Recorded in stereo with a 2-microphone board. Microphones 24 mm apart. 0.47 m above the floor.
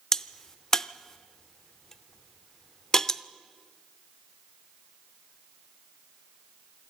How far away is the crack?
About 0.6 m.